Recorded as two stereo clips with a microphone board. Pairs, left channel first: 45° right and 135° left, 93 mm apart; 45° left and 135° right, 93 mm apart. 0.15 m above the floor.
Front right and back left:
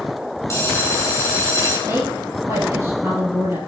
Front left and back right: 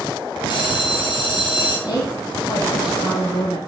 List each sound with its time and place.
0.5 s a bell: 15° left, 4 m
1.9 s a woman speaking: 80° left, 5 m